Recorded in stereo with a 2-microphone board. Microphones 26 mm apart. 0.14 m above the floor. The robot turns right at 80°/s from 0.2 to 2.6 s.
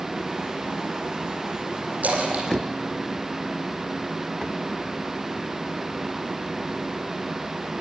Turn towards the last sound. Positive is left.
turn(degrees=-50)  # may be behind; listen again after turning